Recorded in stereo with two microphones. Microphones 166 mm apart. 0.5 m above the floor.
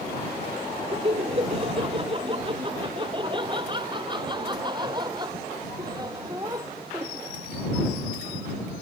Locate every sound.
0.9 s laughter: 35° right (ahead or behind); by 7.2 s 20° right (ahead or behind)